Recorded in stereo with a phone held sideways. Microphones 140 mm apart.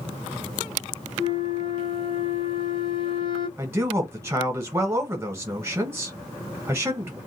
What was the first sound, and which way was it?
A flute, 40° left (ahead or behind).